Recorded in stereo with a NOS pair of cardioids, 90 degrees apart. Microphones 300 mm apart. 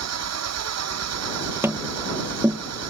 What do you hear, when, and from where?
0.0 s an engine running: 60° right
1.6 s tapping: 10° right